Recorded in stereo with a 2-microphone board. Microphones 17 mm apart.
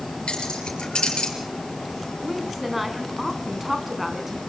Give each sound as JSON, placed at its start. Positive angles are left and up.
{"t": 0.3, "sound": "keys jangling", "side_deg": 80, "distance_m": 5.0}
{"t": 2.2, "sound": "a woman speaking", "side_deg": 0, "distance_m": 3.5}